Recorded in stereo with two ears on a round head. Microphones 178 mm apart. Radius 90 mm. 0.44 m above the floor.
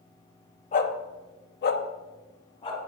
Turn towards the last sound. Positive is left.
turn(degrees=30)  # may be behind; listen again after turning